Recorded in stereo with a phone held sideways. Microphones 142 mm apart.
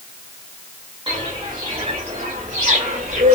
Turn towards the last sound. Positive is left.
turn(degrees=-55)  # may be behind; listen again after turning